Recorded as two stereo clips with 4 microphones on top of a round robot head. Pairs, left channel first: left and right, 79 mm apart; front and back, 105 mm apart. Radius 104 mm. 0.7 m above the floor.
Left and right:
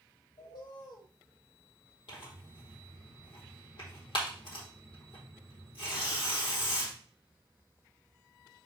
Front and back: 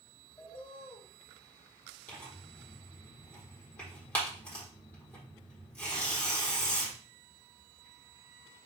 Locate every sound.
0.4 s a bird: 70° left, 4.5 m
2.1 s tearing paper: 75° left, 4 m